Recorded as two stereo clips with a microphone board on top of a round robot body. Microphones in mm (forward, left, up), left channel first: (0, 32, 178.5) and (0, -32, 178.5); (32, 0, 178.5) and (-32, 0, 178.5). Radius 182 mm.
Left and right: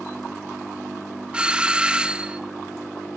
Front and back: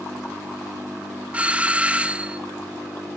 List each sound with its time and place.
1.3 s a doorbell: 145° right, 1.3 m